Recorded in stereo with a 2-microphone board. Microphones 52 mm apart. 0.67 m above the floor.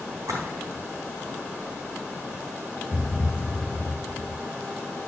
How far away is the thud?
About 1.0 m.